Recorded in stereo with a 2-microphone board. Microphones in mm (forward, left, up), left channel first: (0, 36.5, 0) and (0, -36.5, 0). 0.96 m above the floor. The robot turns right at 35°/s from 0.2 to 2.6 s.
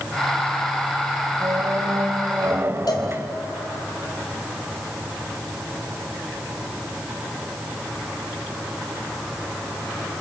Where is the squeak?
80° right, 1.2 m; by 3.4 s 40° right, 1.2 m.